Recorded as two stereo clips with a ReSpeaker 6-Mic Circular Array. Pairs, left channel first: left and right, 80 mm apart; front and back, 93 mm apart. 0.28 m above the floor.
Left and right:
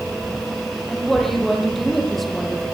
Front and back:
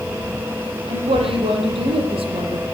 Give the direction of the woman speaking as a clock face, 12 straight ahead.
6 o'clock.